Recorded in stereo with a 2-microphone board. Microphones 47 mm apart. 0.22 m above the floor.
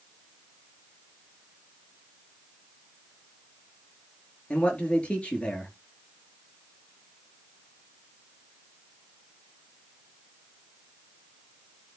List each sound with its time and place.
4.5 s a man speaking: 25° left (ahead or behind), 4 m